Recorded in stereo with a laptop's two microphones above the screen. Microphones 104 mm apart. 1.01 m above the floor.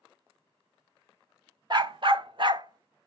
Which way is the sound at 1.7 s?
45° right (ahead or behind).